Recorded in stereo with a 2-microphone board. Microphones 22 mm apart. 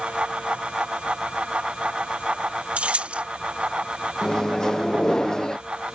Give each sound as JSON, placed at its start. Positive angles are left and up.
{"t": 2.8, "sound": "keys jangling", "side_deg": -75}
{"t": 4.2, "sound": "a microwave", "side_deg": 30}